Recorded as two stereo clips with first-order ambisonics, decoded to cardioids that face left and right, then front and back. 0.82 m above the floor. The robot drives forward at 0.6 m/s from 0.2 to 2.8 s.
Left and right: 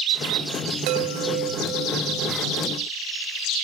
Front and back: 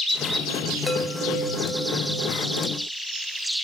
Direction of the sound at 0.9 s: 80° right.